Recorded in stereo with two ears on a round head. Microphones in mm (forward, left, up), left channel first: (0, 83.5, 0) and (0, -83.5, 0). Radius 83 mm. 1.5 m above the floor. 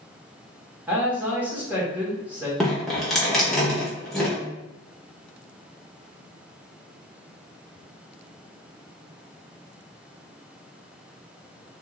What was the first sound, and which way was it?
A man speaking, 10° right (ahead or behind).